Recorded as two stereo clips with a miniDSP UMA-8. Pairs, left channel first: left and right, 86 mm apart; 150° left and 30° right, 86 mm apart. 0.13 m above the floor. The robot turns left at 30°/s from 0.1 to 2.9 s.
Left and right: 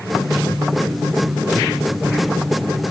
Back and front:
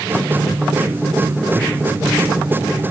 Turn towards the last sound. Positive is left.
No sound to turn to.